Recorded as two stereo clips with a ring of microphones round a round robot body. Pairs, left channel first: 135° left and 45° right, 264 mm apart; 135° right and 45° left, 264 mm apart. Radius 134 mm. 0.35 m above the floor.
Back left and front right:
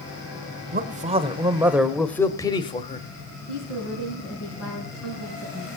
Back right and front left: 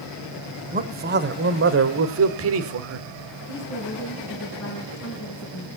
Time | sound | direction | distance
0.7 | a man speaking | 5° right | 1.2 m
3.5 | a woman speaking | 175° left | 4 m